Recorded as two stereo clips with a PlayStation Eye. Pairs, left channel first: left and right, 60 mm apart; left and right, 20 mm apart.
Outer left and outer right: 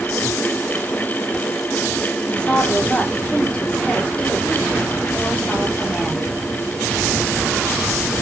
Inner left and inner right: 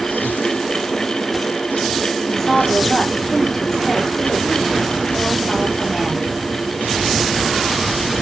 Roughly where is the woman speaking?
Centre.